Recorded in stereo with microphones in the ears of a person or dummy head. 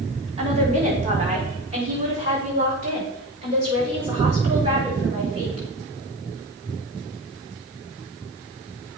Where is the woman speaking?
30° right (ahead or behind), 3.5 m; by 5.7 s 25° right (ahead or behind), 7 m.